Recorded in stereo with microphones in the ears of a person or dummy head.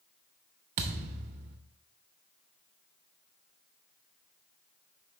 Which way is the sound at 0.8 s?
35° right (ahead or behind).